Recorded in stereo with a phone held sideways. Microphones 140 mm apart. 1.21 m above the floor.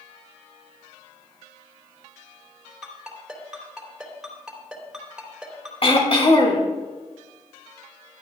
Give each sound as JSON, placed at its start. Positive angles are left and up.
{"t": 2.8, "sound": "a ringtone", "side_deg": -5, "distance_m": 3.0}
{"t": 5.8, "sound": "throat clearing", "side_deg": 40, "distance_m": 1.9}